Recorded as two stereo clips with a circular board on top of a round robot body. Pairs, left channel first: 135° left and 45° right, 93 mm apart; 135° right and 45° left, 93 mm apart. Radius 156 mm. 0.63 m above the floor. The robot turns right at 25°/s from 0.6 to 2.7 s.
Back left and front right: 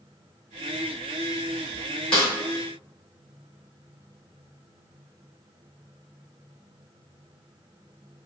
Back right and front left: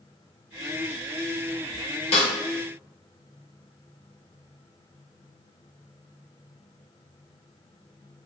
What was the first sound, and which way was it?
A snare drum, 145° right.